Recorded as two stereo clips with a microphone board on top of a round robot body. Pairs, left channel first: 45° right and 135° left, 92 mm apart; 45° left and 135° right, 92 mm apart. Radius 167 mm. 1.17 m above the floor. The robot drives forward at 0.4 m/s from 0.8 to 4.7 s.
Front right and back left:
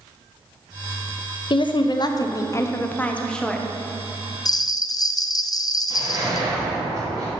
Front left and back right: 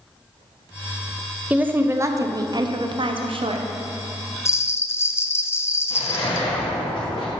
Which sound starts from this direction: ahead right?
A woman speaking, at 1.5 s.